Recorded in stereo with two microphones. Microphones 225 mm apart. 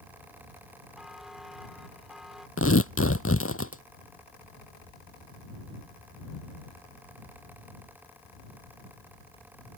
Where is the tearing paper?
75° left (ahead or behind).